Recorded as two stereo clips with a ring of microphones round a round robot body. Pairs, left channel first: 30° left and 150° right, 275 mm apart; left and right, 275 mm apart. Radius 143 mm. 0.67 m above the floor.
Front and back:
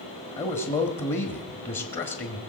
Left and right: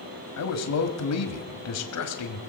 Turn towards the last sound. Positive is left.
turn(degrees=90)